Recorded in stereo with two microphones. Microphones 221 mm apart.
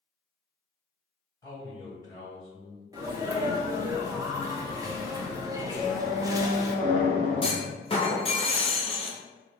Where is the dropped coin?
No dropped coin in this recording.